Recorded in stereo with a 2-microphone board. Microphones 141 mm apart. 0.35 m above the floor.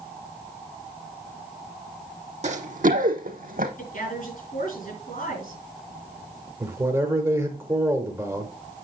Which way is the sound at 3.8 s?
75° left (ahead or behind).